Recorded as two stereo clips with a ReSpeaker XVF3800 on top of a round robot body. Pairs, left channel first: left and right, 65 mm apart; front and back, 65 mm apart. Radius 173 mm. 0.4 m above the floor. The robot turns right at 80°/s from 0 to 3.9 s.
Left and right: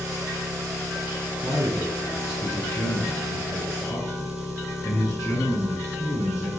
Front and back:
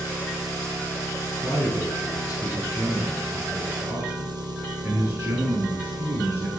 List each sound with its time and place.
0.0 s an engine running: 130° right, 7.5 m; by 6.6 s straight behind, 7.5 m
1.4 s a man speaking: 70° right, 8 m; by 6.5 s 130° left, 8 m